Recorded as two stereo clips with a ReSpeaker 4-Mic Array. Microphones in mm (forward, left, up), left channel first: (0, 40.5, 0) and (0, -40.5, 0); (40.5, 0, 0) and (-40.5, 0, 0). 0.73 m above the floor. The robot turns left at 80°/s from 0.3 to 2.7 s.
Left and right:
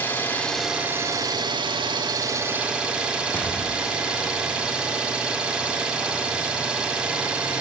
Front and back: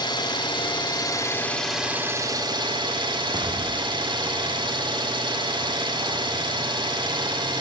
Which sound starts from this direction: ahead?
An engine running, at 0.0 s.